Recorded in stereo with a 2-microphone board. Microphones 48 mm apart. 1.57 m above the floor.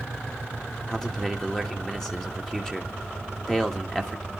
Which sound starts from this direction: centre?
A man speaking, at 0.9 s.